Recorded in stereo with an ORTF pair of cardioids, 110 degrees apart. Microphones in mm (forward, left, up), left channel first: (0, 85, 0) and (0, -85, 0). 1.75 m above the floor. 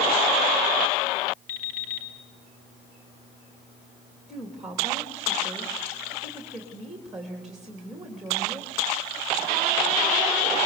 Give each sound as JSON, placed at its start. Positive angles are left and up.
{"t": 1.5, "sound": "an alarm clock", "azimuth_deg": 60, "distance_m": 2.5}
{"t": 4.3, "sound": "a woman speaking", "azimuth_deg": 0, "distance_m": 3.0}